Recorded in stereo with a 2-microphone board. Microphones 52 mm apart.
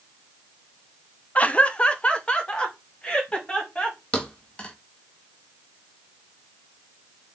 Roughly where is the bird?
I don't hear a bird.